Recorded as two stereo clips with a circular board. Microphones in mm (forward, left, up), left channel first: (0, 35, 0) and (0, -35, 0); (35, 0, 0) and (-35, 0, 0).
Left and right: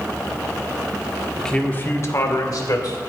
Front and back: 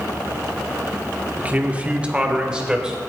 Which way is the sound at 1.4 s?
170° left.